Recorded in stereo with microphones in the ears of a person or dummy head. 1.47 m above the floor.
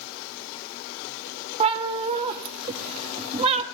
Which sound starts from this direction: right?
A cat meowing, at 1.6 s.